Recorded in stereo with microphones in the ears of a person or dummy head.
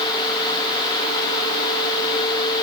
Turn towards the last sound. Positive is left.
No sound to turn to.